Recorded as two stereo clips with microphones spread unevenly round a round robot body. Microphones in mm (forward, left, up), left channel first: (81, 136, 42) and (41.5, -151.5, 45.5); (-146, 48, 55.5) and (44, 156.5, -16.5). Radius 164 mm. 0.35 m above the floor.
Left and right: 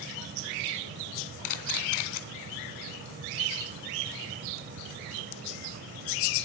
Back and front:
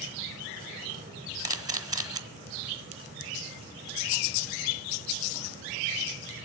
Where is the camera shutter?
95° left, 1.6 m.